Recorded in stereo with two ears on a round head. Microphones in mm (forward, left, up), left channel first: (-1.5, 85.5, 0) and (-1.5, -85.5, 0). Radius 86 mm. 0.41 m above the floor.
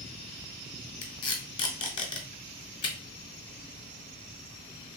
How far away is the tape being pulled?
About 0.8 m.